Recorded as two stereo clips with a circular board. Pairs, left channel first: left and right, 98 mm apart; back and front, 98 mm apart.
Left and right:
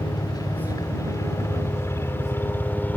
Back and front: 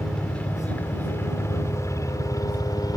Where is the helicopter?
100° left; by 3.0 s 155° left.